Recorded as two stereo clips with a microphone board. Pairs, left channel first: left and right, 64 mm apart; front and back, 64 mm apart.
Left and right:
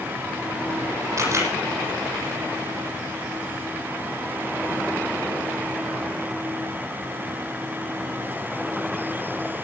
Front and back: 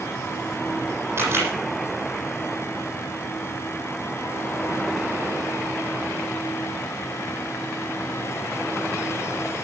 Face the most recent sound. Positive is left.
turn(degrees=-125)